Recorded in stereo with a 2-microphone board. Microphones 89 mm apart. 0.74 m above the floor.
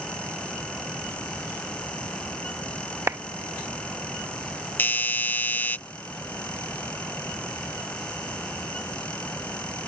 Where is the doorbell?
20° left (ahead or behind).